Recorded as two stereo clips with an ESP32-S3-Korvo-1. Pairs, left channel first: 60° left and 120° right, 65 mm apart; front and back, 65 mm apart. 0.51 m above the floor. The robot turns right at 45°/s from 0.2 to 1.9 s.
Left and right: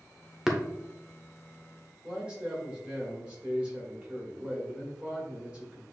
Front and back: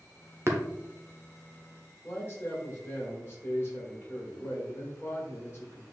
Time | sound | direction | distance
0.5 | tapping | 155° left | 0.9 m
2.0 | a man speaking | 45° right | 1.6 m